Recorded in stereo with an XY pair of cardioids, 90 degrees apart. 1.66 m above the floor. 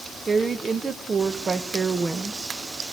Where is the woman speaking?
30° right, 2.0 m.